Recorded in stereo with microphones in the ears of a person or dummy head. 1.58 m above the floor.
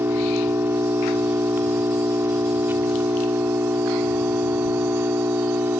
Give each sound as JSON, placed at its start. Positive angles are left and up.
{"t": 0.0, "sound": "an engine running", "side_deg": -15}